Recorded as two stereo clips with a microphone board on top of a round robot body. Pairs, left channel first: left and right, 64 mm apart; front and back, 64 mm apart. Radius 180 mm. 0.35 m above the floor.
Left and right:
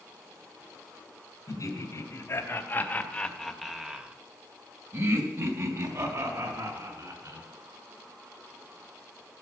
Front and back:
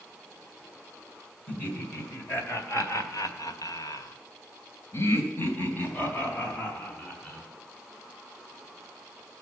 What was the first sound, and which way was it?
Laughter, 60° left.